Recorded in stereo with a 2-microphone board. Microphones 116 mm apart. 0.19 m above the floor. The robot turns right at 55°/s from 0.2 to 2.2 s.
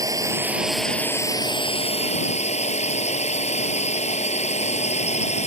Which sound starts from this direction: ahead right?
A drone, at 0.0 s.